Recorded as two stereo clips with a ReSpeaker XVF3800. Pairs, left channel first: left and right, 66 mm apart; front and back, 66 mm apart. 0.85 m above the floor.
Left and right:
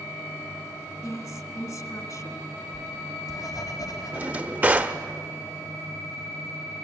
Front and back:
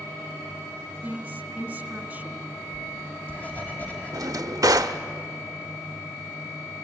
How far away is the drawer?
About 0.9 m.